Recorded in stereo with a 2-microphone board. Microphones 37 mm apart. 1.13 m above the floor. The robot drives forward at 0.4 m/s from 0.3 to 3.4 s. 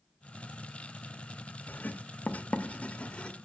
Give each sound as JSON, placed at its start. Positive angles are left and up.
{"t": 1.7, "sound": "writing", "side_deg": 50, "distance_m": 0.7}